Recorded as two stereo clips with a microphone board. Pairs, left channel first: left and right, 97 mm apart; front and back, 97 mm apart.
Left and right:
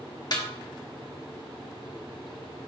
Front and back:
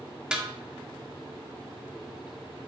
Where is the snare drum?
105° left, 1.4 m.